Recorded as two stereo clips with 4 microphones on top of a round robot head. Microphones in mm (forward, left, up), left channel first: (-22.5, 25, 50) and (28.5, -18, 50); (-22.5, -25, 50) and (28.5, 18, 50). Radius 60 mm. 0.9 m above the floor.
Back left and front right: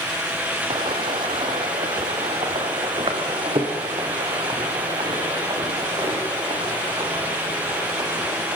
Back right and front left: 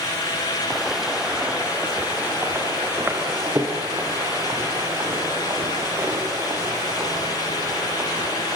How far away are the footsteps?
About 2.5 m.